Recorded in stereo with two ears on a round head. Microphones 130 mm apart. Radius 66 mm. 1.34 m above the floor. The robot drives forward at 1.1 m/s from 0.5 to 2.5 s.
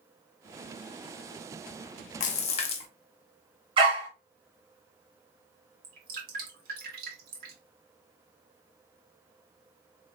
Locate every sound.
2.2 s a splash: 60° left (ahead or behind), 0.8 m; by 2.9 s 45° left (ahead or behind), 0.9 m
3.8 s a dog barking: 35° right (ahead or behind), 1.6 m
5.8 s dripping: 70° right (ahead or behind), 1.8 m